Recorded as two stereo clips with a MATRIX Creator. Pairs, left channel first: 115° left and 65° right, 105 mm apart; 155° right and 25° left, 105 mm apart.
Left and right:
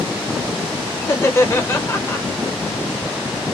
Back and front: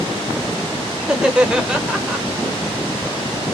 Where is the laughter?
95° left, 0.9 m.